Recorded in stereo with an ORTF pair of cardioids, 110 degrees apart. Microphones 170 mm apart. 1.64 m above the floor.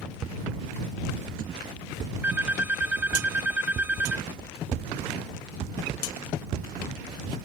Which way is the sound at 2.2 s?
10° right.